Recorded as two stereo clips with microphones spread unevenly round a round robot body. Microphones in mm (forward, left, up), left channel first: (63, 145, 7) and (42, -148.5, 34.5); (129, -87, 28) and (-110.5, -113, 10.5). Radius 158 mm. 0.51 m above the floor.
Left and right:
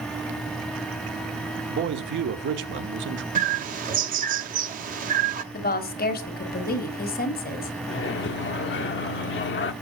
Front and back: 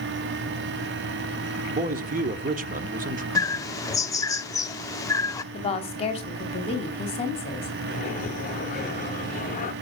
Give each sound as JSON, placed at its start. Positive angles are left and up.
{"t": 1.7, "sound": "a man speaking", "azimuth_deg": -140, "distance_m": 1.0}
{"t": 3.4, "sound": "a bird", "azimuth_deg": -60, "distance_m": 0.8}
{"t": 5.5, "sound": "a woman speaking", "azimuth_deg": 65, "distance_m": 1.4}
{"t": 7.9, "sound": "a microwave", "azimuth_deg": 60, "distance_m": 0.7}